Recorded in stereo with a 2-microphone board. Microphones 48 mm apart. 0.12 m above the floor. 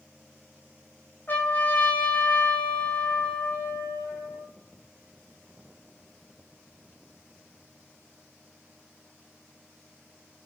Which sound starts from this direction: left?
A trumpet, at 1.3 s.